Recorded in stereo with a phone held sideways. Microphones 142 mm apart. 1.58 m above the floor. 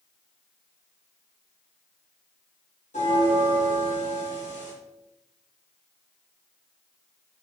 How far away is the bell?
About 1.8 m.